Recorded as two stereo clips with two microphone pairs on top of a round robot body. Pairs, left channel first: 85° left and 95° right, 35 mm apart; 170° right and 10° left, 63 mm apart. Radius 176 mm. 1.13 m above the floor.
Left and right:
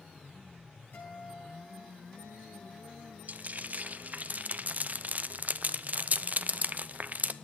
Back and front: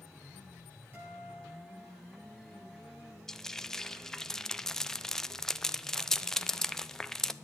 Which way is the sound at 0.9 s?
65° left.